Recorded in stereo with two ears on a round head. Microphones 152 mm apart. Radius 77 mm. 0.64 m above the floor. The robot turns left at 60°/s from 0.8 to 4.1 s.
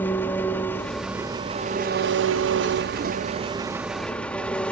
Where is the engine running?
10° left, 0.7 m; by 4.7 s 175° left, 0.7 m.